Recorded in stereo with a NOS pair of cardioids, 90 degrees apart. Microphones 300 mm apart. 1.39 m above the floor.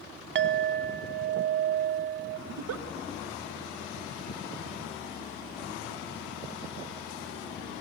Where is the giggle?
60° right, 1.1 m.